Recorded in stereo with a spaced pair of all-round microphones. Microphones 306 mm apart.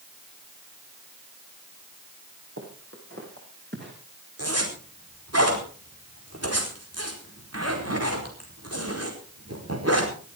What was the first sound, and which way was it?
Footsteps, 45° right (ahead or behind).